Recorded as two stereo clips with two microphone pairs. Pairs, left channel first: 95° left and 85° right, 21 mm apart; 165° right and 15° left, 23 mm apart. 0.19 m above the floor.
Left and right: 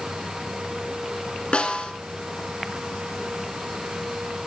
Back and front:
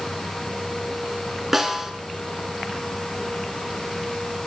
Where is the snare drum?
95° left, 1.3 m.